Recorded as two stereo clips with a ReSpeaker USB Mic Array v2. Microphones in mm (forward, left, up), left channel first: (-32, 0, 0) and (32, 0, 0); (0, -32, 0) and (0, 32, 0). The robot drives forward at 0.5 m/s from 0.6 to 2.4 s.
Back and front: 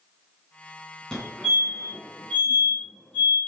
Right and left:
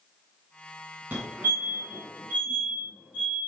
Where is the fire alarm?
100° left, 2 m; by 3.4 s 130° left, 2.5 m.